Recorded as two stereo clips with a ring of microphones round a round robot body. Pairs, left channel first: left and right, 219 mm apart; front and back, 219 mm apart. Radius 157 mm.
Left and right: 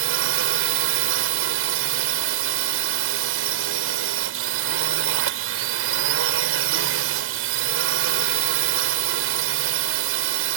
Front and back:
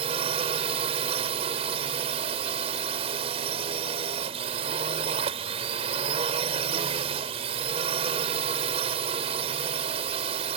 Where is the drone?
110° right.